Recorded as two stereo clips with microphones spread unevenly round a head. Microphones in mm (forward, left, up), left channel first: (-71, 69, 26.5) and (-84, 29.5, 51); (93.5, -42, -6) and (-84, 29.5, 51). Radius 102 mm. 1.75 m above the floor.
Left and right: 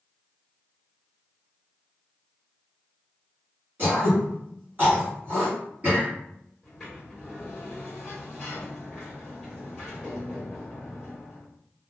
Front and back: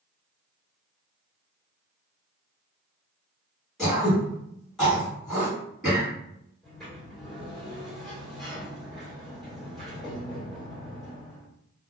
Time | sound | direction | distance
3.8 | throat clearing | 120° right | 1.6 m
6.6 | a sliding door | 140° right | 1.5 m